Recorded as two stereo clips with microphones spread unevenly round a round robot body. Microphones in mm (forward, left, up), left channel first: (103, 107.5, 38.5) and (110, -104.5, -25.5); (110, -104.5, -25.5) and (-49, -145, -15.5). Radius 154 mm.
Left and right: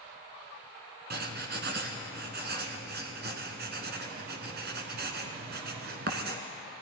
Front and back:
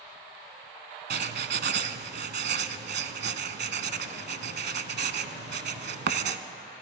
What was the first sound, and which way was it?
Writing, 150° right.